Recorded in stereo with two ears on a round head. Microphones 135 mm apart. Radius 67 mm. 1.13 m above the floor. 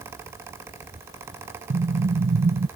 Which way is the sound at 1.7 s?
60° right (ahead or behind).